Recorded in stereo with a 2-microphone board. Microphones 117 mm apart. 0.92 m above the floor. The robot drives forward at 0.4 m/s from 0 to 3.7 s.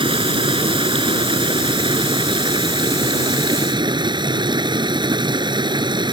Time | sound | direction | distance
0.0 | running water | 50° right (ahead or behind) | ?